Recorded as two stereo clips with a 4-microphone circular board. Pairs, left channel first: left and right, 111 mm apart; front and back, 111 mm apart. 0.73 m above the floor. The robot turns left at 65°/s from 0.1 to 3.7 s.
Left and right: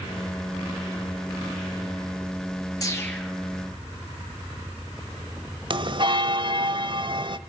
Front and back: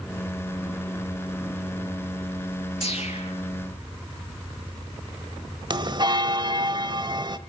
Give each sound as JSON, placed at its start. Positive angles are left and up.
{"t": 2.8, "sound": "a whoosh", "azimuth_deg": 30, "distance_m": 4.0}
{"t": 5.7, "sound": "a bell", "azimuth_deg": -130, "distance_m": 0.9}